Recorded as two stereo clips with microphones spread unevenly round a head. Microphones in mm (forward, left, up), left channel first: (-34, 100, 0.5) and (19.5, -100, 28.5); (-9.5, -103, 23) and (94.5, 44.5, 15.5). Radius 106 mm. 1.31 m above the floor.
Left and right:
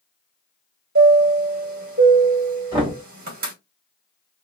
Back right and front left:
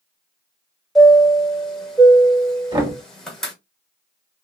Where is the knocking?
10° right, 1.5 m.